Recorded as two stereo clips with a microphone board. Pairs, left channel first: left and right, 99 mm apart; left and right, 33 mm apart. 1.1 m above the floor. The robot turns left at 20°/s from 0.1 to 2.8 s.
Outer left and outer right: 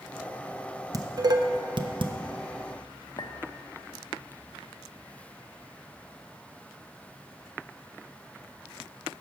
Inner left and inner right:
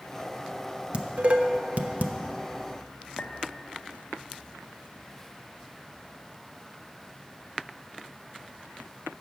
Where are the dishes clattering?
40° right (ahead or behind), 0.6 m; by 2.1 s 60° right (ahead or behind), 0.6 m.